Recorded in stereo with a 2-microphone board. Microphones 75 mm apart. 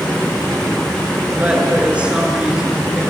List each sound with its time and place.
1.4 s a woman speaking: 20° right (ahead or behind), 5 m; by 3.0 s 10° right (ahead or behind), 4.5 m